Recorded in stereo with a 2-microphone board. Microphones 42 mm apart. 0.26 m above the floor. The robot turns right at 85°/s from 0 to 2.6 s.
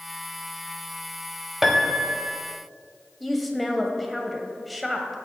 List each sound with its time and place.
1.6 s a piano: 170° right, 0.7 m; by 2.4 s 100° right, 0.7 m
3.2 s a woman speaking: centre (ahead or behind), 0.9 m